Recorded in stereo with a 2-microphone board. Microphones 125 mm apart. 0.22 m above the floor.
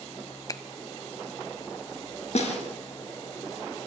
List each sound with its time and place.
0.5 s a finger snap: 30° left (ahead or behind), 0.9 m
2.4 s a snare drum: 60° left (ahead or behind), 3.5 m